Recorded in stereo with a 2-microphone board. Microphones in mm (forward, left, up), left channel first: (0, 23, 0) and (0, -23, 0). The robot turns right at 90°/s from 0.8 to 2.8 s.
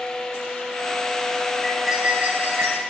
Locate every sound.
1.6 s cutlery clinking: 170° left, 2.5 m; by 2.8 s 85° right, 2.5 m